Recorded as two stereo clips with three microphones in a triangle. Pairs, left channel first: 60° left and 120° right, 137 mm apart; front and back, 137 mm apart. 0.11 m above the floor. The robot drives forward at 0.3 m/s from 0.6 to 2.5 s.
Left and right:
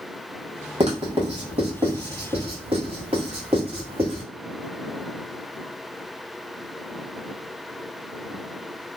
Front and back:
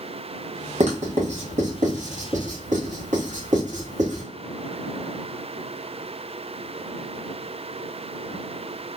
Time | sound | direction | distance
0.8 | writing | 155° right | 1.4 m